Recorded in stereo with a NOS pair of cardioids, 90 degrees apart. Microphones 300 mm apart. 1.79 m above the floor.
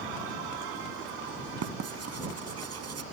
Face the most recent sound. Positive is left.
turn(degrees=-55)